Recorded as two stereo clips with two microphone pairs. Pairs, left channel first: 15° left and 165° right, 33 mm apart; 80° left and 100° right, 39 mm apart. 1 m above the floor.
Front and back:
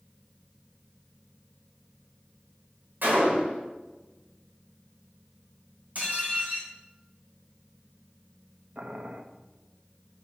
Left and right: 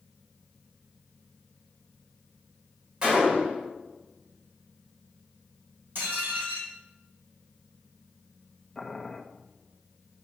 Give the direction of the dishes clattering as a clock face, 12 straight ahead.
4 o'clock.